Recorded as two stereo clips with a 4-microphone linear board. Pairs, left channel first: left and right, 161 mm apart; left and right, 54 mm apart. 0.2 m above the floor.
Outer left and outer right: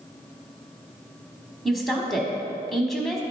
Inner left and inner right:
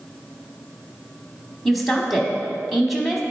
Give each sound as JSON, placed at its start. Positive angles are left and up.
{"t": 1.6, "sound": "a woman speaking", "side_deg": 0, "distance_m": 1.0}